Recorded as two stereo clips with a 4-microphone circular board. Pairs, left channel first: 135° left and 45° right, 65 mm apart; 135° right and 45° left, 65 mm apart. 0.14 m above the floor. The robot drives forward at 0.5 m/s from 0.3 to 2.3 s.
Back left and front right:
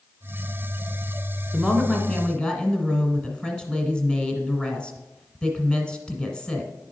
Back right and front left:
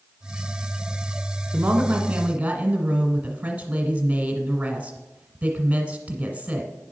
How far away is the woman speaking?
About 1.2 m.